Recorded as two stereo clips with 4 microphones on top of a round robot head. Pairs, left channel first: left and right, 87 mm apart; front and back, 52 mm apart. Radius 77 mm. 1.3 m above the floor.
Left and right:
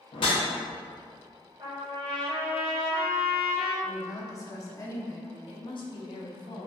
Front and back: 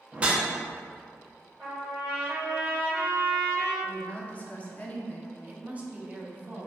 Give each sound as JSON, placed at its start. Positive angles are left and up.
{"t": 0.1, "sound": "a whoosh", "azimuth_deg": 115, "distance_m": 0.5}
{"t": 1.6, "sound": "a trumpet", "azimuth_deg": -115, "distance_m": 1.4}
{"t": 3.8, "sound": "a woman speaking", "azimuth_deg": 55, "distance_m": 0.6}
{"t": 5.5, "sound": "a woman speaking", "azimuth_deg": 115, "distance_m": 0.6}